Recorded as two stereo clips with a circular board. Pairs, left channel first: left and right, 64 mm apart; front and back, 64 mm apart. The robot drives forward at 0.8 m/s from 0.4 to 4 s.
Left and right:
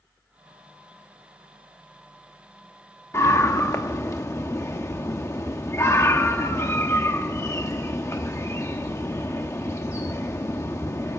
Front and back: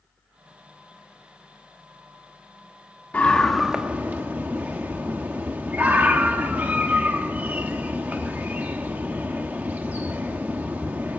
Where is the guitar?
I don't hear a guitar.